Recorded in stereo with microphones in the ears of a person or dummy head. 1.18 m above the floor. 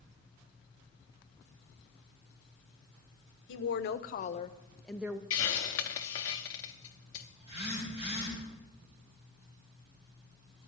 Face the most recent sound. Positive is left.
turn(degrees=-25)  # may be behind; listen again after turning